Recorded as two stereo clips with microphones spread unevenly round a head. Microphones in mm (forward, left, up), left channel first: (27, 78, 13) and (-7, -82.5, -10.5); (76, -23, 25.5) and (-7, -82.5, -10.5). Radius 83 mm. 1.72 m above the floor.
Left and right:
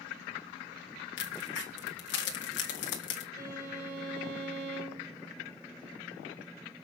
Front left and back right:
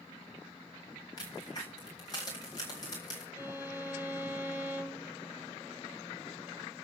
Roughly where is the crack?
Left.